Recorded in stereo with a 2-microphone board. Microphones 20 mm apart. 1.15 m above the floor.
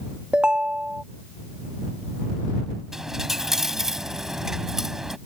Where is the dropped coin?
20° right (ahead or behind).